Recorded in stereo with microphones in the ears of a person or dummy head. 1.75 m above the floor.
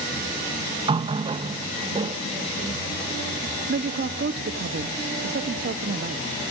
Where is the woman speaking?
60° right (ahead or behind), 1.4 m.